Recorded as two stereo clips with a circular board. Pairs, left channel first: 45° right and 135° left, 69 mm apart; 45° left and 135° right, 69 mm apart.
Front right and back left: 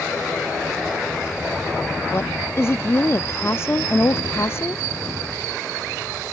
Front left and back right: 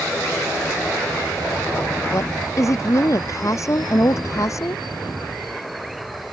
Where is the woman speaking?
5° left.